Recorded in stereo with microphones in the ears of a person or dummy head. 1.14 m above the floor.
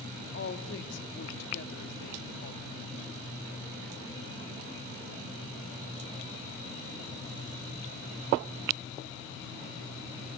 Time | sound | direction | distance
0.3 | a woman speaking | 75° left (ahead or behind) | 3 m